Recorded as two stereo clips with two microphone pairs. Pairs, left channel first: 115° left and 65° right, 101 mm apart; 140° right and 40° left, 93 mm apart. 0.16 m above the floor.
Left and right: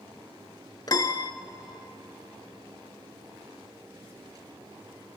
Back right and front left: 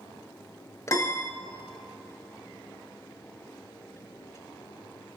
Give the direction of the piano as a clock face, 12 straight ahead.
6 o'clock.